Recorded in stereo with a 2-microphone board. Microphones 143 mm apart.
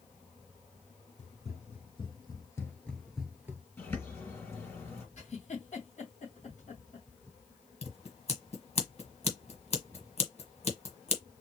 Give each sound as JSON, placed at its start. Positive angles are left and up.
{"t": 1.2, "sound": "running footsteps", "side_deg": 50, "distance_m": 1.8}
{"t": 3.8, "sound": "a bird", "side_deg": 15, "distance_m": 3.0}
{"t": 5.2, "sound": "a giggle", "side_deg": 55, "distance_m": 2.5}
{"t": 7.8, "sound": "scissors", "side_deg": 45, "distance_m": 1.5}